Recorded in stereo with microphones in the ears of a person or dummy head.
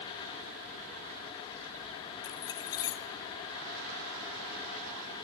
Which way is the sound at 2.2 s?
20° left (ahead or behind).